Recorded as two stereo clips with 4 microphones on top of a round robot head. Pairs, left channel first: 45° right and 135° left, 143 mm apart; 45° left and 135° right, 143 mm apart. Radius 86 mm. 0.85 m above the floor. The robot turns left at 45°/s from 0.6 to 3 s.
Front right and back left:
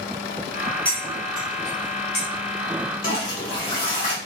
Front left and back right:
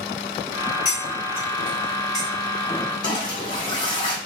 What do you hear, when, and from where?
0.8 s cutlery clinking: 35° left, 1.9 m; by 2.3 s 30° right, 1.9 m
3.0 s a toilet flushing: 15° right, 1.4 m